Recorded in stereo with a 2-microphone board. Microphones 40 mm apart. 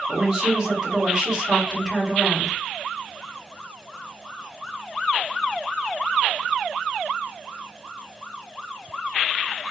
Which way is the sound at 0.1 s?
20° right (ahead or behind).